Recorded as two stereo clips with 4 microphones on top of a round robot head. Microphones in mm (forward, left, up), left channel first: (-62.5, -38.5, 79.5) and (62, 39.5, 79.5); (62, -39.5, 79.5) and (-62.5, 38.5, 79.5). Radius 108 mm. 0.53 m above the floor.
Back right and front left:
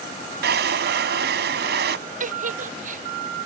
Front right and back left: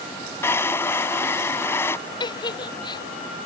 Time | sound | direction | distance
0.4 | a drawer | 45° left | ?
2.2 | a giggle | 25° left | ?